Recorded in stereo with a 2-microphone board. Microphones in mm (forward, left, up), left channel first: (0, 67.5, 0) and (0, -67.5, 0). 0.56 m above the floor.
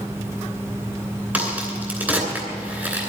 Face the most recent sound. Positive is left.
turn(degrees=-15)  # may be behind; listen again after turning